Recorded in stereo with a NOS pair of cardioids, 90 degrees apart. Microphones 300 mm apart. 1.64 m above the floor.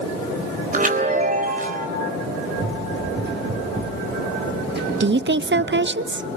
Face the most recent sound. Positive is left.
turn(degrees=-40)